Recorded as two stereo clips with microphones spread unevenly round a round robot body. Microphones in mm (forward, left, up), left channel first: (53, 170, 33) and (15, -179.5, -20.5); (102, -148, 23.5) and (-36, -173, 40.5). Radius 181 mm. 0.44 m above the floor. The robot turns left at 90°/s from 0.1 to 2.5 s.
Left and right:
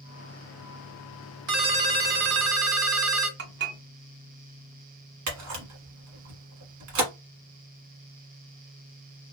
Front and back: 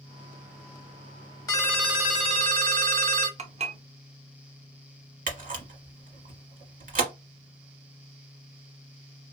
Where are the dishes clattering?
135° right, 0.8 m.